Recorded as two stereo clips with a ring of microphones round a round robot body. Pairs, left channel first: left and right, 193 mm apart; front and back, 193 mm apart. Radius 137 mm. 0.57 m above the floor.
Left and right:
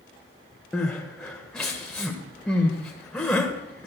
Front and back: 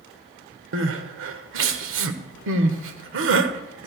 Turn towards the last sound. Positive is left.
turn(degrees=175)